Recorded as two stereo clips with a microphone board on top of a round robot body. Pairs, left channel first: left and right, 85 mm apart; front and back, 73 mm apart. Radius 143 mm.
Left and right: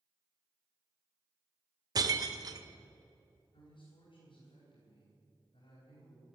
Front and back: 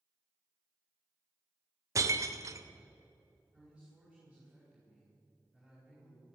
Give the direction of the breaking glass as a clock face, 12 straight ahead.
4 o'clock.